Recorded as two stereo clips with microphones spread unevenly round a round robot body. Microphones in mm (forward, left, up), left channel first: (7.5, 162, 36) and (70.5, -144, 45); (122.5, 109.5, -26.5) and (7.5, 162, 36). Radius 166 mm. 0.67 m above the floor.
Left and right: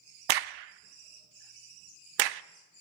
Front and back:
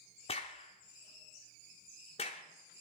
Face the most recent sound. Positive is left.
turn(degrees=-75)